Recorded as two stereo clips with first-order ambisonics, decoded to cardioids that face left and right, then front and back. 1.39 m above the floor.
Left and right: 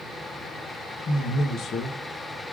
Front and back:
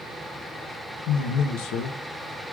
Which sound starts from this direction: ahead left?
A man speaking, at 1.1 s.